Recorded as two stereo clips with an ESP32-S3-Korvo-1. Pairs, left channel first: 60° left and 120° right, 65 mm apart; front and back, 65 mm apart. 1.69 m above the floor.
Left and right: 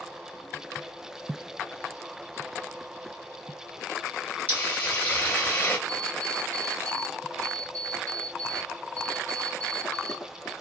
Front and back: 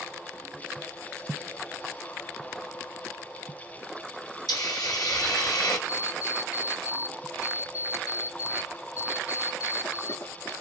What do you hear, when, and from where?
4.5 s a hiss: straight ahead, 2 m
5.9 s an alarm clock: 10° right, 2 m